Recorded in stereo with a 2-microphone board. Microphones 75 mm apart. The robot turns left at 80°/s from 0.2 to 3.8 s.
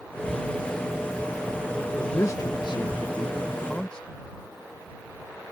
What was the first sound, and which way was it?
A man speaking, 160° left.